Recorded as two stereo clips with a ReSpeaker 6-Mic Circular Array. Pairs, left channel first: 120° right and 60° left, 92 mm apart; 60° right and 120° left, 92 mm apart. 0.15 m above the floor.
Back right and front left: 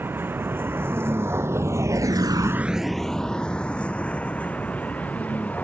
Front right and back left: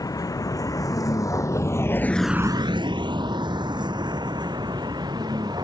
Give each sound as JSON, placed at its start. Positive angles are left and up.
{"t": 0.0, "sound": "a vehicle", "azimuth_deg": -10}